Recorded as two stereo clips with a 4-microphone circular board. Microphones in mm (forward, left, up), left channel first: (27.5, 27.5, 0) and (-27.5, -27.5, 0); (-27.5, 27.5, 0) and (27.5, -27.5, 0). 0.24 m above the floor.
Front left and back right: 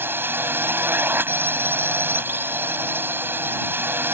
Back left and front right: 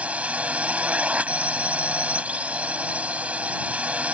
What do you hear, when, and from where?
0.0 s a drone: 105° right